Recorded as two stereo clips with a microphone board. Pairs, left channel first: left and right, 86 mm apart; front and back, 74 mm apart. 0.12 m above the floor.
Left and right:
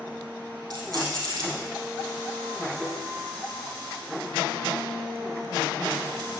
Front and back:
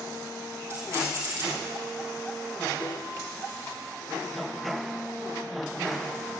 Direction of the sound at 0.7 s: 125° right.